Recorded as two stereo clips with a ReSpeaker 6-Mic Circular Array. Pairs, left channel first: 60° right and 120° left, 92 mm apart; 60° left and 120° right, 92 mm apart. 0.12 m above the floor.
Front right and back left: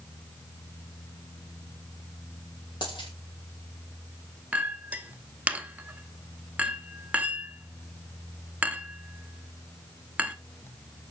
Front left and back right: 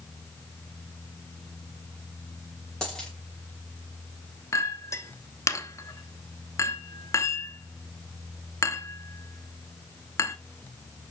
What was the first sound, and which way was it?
A dropped coin, 25° right.